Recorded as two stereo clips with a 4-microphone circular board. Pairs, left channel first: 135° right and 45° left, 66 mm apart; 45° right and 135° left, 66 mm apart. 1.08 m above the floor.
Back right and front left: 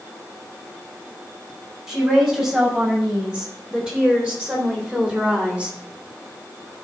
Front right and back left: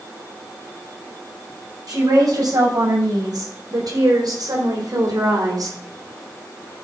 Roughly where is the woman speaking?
Behind left.